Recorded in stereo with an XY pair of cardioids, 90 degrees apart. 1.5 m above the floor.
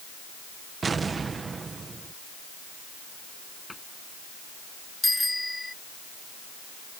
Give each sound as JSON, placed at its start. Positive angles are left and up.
{"t": 0.8, "sound": "an explosion", "azimuth_deg": -40}
{"t": 3.7, "sound": "a cupboard door", "azimuth_deg": 15}
{"t": 5.0, "sound": "a bicycle bell", "azimuth_deg": 10}